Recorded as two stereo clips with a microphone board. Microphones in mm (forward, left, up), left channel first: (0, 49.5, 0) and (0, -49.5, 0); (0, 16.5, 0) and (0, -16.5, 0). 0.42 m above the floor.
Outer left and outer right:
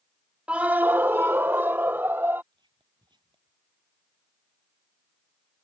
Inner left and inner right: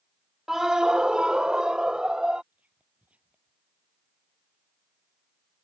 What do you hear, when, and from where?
0.5 s a scream: 15° right (ahead or behind); by 2.4 s 20° right (ahead or behind)
2.5 s whispering: 55° right (ahead or behind)